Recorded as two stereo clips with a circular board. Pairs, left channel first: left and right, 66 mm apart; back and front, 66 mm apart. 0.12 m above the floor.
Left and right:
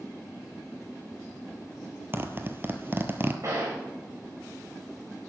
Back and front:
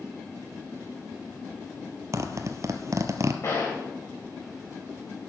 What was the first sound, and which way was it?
A zipper, 35° right.